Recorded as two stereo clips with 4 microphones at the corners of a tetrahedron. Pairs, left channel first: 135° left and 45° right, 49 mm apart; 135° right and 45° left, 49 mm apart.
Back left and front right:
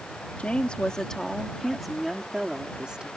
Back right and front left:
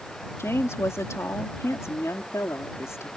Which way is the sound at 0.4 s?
165° right.